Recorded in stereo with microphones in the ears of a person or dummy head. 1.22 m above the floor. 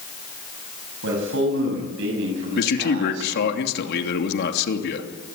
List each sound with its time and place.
1.0 s a man speaking: 80° right, 6.5 m
2.5 s a man speaking: 55° left (ahead or behind), 3 m